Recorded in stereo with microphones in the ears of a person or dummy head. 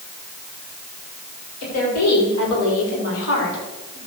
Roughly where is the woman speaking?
Left.